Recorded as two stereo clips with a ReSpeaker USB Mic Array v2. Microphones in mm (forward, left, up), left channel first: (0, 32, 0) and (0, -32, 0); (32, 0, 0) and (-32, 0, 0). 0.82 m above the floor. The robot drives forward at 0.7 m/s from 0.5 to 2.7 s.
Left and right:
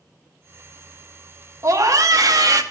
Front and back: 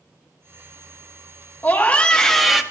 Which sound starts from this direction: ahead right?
A scream, at 1.6 s.